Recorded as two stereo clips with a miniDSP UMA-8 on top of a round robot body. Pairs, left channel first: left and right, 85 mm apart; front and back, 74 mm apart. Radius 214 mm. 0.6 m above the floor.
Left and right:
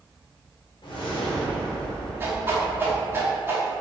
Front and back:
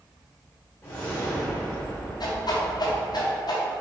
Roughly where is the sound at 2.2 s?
Ahead right.